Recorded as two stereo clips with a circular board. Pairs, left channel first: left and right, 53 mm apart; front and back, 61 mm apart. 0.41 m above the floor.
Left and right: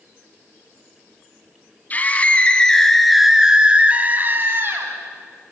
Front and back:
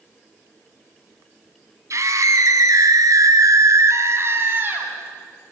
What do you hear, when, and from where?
1.9 s a scream: 145° left, 3.5 m; by 4.9 s 125° right, 3.5 m